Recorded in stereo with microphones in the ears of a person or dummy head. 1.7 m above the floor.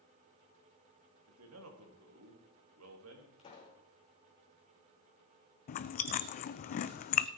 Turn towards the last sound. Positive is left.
turn(degrees=40)  # may be behind; listen again after turning